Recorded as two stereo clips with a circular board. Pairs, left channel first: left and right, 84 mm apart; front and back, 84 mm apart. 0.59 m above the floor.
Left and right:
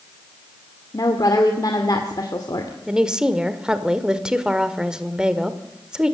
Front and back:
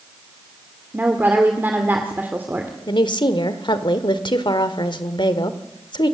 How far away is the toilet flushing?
No toilet flushing in this recording.